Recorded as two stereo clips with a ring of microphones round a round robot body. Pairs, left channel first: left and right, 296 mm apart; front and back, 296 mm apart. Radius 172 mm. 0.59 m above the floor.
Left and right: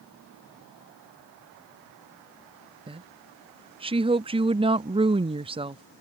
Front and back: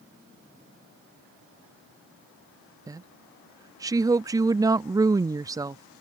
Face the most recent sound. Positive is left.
turn(degrees=-120)